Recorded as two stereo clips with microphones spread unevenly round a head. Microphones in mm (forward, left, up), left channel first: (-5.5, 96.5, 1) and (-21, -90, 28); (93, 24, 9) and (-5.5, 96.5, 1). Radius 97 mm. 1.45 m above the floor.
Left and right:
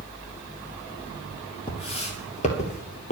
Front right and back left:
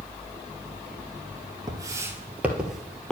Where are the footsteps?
125° left, 1.5 m; by 3.1 s 40° left, 1.7 m.